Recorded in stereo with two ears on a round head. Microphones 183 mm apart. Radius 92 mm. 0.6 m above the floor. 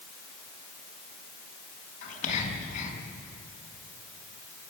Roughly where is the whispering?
Left.